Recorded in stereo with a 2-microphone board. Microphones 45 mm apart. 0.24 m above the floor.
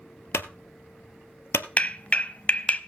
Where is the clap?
35° left (ahead or behind), 0.9 m.